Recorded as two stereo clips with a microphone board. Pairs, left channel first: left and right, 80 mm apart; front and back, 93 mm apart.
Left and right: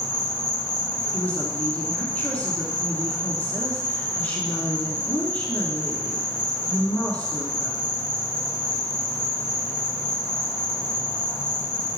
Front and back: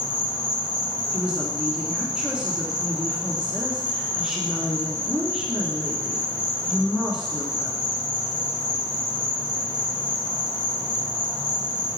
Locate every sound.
0.0 s an insect: 175° left, 2 m
1.1 s a woman speaking: 120° left, 1.1 m